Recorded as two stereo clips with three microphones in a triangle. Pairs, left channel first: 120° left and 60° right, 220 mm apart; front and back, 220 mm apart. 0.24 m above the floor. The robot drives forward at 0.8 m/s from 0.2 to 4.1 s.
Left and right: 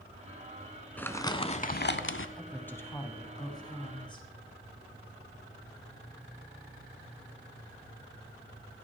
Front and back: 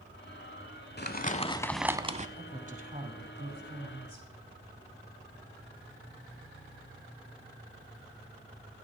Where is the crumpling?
40° left, 0.9 m; by 2.3 s 125° left, 0.7 m.